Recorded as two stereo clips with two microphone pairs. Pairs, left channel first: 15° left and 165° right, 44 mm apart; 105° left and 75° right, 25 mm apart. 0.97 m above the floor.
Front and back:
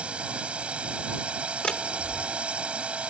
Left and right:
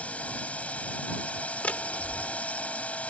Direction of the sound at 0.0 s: 130° left.